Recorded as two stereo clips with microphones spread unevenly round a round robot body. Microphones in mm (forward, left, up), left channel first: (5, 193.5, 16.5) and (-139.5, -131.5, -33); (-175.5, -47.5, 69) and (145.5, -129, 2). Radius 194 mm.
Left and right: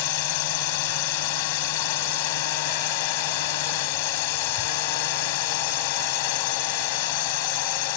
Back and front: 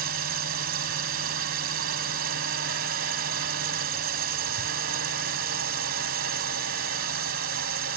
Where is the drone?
45° left.